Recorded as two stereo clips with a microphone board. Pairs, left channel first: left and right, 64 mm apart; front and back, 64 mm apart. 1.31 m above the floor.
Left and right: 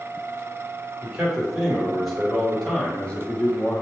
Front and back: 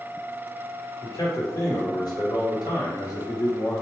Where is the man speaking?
15° right, 1.9 m; by 3.8 s 35° left, 1.2 m.